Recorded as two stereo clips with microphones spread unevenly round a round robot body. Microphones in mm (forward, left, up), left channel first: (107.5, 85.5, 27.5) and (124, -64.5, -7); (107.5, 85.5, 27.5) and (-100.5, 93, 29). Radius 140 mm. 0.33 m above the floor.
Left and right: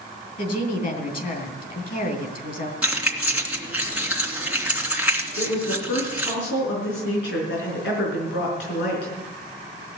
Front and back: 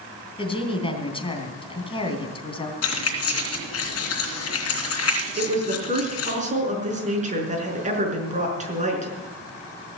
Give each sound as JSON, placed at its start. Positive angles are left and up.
{"t": 0.4, "sound": "a woman speaking", "azimuth_deg": 65, "distance_m": 3.5}
{"t": 2.8, "sound": "keys jangling", "azimuth_deg": -5, "distance_m": 2.5}
{"t": 5.4, "sound": "a woman speaking", "azimuth_deg": 120, "distance_m": 5.5}